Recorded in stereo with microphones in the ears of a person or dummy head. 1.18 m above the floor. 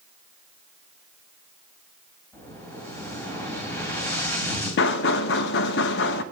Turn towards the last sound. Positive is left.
turn(degrees=70)  # may be behind; listen again after turning